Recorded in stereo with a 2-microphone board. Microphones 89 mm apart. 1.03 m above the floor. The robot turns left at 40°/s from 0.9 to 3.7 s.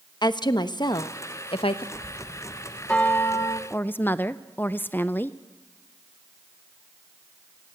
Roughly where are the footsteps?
I don't hear footsteps.